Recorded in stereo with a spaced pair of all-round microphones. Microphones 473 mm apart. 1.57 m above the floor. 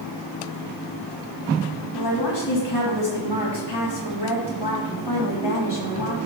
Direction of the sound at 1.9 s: 60° left (ahead or behind).